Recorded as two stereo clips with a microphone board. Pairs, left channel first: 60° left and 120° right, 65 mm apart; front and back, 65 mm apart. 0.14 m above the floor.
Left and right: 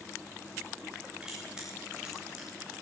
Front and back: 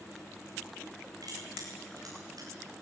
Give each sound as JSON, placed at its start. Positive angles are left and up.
{"t": 1.2, "sound": "crushing", "azimuth_deg": 165, "distance_m": 9.0}